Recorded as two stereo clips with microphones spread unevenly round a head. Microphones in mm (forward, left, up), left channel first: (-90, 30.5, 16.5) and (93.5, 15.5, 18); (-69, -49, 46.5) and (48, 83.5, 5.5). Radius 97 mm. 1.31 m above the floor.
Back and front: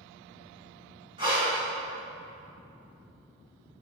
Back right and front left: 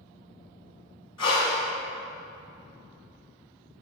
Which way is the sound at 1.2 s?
70° right.